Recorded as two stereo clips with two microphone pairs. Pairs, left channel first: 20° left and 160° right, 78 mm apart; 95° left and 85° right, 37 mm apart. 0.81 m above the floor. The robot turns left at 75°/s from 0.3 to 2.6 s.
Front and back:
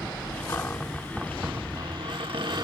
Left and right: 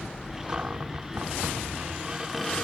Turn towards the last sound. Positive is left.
turn(degrees=170)